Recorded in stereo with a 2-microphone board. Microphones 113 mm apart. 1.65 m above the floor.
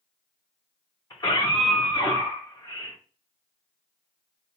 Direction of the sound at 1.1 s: 40° left (ahead or behind).